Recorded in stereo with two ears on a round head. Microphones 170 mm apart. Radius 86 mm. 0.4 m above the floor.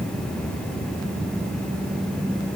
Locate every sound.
Only background noise.